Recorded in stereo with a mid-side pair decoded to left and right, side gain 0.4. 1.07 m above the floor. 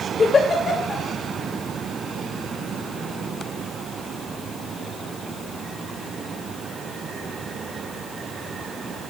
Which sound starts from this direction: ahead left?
A giggle, at 0.2 s.